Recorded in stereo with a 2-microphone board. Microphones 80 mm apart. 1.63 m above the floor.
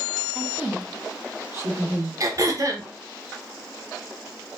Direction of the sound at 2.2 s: 45° right (ahead or behind).